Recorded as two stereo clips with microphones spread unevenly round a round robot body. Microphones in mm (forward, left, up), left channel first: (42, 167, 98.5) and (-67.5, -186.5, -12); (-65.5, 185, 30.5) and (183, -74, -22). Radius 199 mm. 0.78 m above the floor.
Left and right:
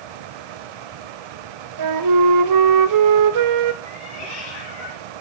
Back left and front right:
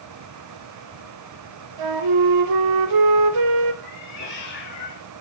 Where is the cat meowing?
75° left, 6.5 m.